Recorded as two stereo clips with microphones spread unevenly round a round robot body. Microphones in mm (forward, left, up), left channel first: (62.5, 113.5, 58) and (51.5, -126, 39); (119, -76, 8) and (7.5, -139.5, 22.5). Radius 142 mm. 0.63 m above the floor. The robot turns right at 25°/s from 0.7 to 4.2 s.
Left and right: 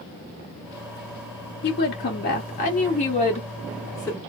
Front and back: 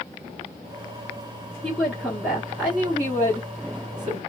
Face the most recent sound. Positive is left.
turn(degrees=170)